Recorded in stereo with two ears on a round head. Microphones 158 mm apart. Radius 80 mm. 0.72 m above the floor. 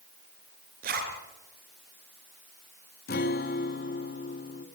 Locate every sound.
0.8 s a zipper: 55° right (ahead or behind), 3.5 m
3.1 s a guitar: 55° left (ahead or behind), 1.3 m